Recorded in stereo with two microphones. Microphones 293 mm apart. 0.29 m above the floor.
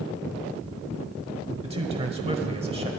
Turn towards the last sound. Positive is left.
turn(degrees=-20)  # may be behind; listen again after turning